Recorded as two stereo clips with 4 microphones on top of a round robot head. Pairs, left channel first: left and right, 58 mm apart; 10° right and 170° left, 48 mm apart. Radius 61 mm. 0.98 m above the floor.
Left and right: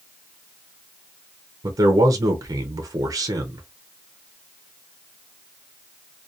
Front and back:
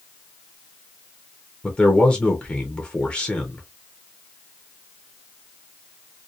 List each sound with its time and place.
1.6 s a man speaking: 80° right, 0.6 m